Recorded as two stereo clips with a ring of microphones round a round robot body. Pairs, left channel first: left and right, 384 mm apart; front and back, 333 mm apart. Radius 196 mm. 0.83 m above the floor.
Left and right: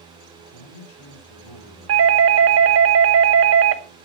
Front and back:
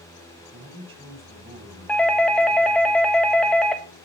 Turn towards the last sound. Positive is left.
turn(degrees=-85)